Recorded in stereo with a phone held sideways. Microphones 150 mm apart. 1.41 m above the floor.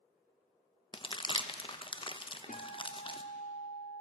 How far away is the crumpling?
About 0.7 m.